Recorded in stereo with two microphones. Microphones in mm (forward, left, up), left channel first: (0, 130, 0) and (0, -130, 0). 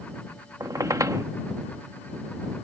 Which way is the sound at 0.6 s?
15° right (ahead or behind).